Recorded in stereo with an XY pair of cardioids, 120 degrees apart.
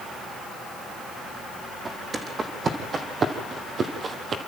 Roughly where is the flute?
No flute in this recording.